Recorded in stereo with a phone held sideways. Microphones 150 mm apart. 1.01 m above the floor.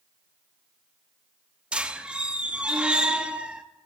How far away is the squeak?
About 0.6 m.